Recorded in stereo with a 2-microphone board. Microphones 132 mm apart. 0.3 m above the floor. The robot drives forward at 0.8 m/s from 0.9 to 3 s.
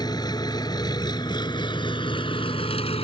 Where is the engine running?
30° left (ahead or behind); by 3.0 s 50° left (ahead or behind).